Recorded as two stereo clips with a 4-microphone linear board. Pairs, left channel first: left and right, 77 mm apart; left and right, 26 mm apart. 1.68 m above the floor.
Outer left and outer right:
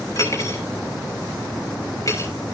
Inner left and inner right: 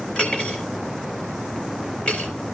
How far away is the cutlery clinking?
About 5 m.